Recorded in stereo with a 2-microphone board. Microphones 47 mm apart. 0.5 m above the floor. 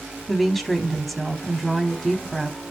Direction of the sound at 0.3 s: 5° left (ahead or behind).